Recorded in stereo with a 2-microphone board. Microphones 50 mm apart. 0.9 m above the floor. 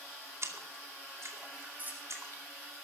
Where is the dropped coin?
35° right (ahead or behind), 6.5 m.